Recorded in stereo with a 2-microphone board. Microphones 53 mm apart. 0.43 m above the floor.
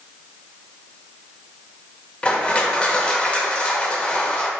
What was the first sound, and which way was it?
Crushing, 25° left (ahead or behind).